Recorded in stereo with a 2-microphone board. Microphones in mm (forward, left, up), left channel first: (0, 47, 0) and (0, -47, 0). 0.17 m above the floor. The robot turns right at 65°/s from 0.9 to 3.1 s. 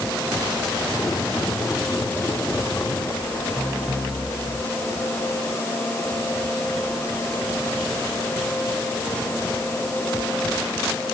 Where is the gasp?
No gasp in this recording.